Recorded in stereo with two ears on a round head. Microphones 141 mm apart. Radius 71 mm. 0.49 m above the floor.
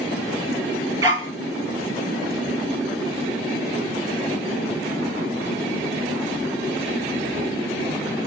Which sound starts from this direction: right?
A dog barking, at 1.0 s.